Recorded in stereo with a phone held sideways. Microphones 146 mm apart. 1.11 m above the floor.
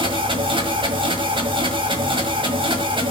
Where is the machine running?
35° right (ahead or behind), 1.6 m.